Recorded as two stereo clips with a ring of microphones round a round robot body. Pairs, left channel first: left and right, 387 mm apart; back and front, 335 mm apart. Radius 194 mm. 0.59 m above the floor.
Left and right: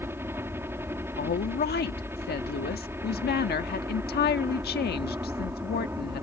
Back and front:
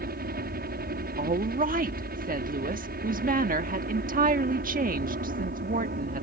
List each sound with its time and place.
0.0 s a helicopter: 10° right
1.2 s a woman speaking: 45° left